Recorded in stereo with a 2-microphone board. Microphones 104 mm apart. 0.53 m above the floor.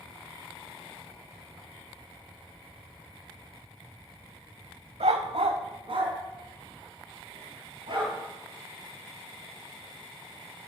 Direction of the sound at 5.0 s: 85° right.